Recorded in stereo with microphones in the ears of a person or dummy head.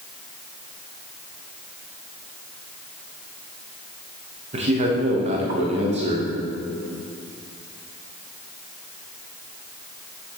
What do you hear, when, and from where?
4.5 s a man speaking: 35° right (ahead or behind), 1.3 m